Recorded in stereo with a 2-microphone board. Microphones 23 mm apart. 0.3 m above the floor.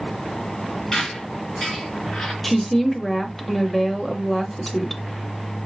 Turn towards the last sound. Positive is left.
turn(degrees=5)  # may be behind; listen again after turning